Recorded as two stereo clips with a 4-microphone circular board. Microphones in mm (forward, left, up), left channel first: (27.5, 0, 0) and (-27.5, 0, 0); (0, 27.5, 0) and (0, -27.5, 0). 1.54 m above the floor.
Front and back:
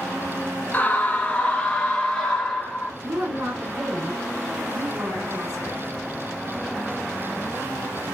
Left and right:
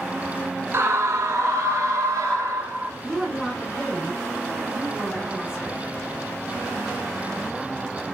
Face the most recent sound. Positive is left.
turn(degrees=-160)